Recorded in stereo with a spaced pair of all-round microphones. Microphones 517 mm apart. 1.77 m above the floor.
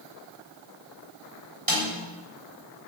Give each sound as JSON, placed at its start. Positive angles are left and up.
{"t": 1.7, "sound": "a snare drum", "side_deg": -40, "distance_m": 9.5}